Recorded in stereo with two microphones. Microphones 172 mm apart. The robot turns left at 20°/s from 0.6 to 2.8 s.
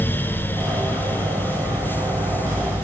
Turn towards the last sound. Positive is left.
No sound to turn to.